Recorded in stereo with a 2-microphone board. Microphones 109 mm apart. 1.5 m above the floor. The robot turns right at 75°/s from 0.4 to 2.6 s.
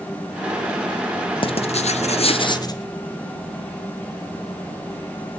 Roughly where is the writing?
Ahead left.